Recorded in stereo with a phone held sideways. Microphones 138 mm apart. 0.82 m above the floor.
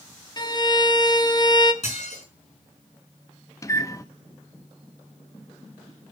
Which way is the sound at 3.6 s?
25° left (ahead or behind).